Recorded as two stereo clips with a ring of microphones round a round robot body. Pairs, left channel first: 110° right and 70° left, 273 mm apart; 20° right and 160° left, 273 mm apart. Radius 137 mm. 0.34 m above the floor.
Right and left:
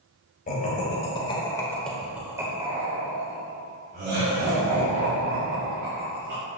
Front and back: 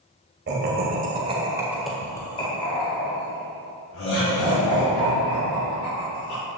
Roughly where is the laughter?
Behind.